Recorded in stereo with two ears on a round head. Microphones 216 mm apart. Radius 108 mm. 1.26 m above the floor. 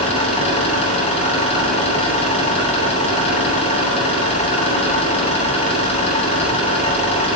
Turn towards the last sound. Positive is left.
turn(degrees=25)  # may be behind; listen again after turning